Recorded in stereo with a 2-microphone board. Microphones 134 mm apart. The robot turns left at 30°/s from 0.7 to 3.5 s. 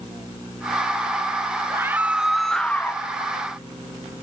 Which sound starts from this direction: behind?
A scream, at 1.7 s.